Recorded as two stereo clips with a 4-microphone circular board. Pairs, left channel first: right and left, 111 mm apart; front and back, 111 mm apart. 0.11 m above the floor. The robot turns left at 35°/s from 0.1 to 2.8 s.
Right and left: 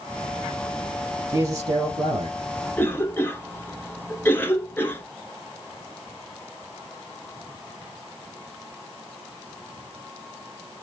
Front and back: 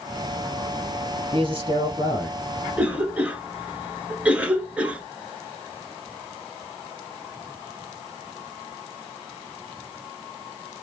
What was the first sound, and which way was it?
A man speaking, 150° left.